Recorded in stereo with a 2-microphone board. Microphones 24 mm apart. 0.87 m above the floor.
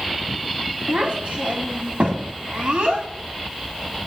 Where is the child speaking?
75° right (ahead or behind), 1.8 m.